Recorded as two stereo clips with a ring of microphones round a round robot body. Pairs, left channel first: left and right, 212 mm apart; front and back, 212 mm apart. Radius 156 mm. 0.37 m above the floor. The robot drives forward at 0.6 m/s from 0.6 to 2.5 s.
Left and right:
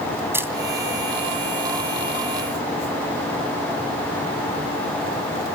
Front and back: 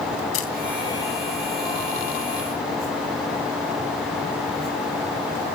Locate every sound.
0.3 s a camera shutter: 10° right, 2.5 m